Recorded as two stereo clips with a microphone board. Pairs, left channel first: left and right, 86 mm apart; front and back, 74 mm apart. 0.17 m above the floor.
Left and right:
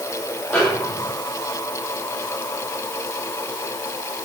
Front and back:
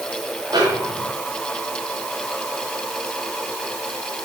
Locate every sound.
0.5 s a snare drum: 170° left, 7.5 m